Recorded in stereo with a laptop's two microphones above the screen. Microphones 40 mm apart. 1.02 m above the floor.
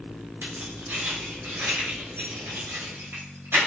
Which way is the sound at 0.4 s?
75° right (ahead or behind).